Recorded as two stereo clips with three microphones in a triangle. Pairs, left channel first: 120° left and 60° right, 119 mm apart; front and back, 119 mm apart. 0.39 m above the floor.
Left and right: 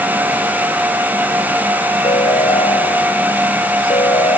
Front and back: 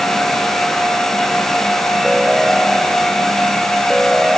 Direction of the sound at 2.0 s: 90° left.